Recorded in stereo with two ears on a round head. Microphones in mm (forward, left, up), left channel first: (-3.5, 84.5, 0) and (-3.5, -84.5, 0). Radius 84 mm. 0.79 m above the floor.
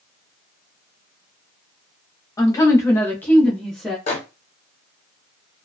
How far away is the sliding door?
I don't hear a sliding door.